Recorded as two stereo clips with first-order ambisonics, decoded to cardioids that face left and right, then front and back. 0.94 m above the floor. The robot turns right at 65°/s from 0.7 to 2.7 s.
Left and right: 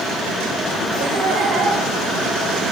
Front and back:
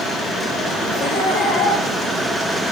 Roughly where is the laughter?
Right.